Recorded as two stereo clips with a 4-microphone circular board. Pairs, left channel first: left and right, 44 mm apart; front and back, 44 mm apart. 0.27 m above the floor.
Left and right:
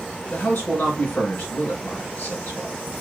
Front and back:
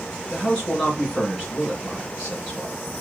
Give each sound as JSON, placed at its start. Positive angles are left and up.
{"t": 0.3, "sound": "a man speaking", "azimuth_deg": 60, "distance_m": 3.5}